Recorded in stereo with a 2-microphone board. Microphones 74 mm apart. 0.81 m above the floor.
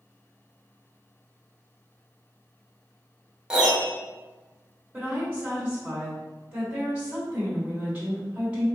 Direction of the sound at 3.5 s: 10° right (ahead or behind).